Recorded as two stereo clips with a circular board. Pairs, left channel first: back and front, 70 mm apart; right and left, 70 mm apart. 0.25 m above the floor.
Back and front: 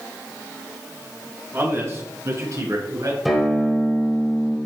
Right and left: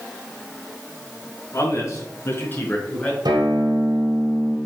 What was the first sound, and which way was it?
A man speaking, 55° right.